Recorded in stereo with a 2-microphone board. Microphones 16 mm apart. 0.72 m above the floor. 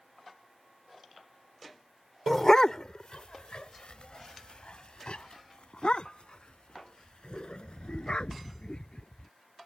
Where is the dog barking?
25° left (ahead or behind); by 9.3 s 60° left (ahead or behind).